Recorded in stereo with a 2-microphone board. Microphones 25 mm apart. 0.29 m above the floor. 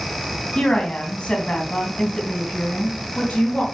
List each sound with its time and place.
0.6 s a woman speaking: 45° left (ahead or behind), 2.5 m; by 3.6 s 65° left (ahead or behind), 3.5 m